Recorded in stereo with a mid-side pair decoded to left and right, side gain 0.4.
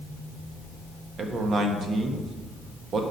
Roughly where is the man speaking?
Ahead right.